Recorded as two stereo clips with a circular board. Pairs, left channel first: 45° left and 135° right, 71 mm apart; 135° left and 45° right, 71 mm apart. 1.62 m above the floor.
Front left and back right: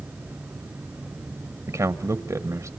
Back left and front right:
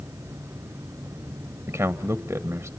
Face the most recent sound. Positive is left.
turn(degrees=-100)